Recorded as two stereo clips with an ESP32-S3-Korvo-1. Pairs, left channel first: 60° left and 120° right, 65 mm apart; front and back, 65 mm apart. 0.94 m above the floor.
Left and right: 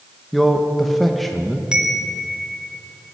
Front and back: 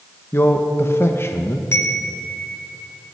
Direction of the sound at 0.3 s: 30° right.